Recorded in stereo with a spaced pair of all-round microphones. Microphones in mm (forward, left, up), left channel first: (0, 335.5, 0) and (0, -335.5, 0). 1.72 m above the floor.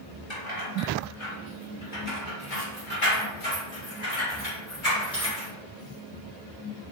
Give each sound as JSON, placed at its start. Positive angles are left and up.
{"t": 0.3, "sound": "keys jangling", "side_deg": 45, "distance_m": 1.3}